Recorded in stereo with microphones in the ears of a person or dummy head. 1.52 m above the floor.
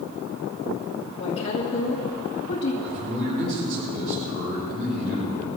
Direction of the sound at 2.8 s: 60° right (ahead or behind).